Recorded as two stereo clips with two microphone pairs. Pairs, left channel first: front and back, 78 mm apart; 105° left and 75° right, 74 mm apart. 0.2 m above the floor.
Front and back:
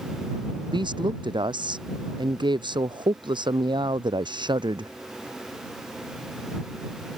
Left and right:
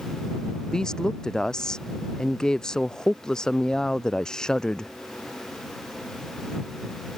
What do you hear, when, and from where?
0.7 s a woman speaking: 170° right